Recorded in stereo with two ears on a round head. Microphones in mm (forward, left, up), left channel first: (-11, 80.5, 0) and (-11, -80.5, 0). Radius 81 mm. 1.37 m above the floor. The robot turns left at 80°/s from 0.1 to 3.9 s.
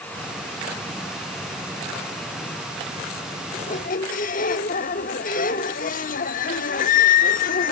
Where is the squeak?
40° left (ahead or behind), 1.2 m; by 7.7 s 50° left (ahead or behind), 1.2 m.